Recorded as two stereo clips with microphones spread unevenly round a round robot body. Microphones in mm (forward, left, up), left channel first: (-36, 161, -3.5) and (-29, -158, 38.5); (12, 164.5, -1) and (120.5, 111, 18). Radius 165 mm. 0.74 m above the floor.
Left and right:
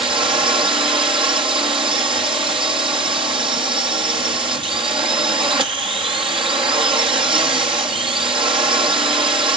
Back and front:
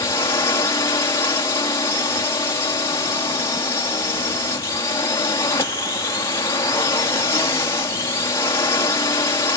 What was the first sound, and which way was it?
A drone, 165° right.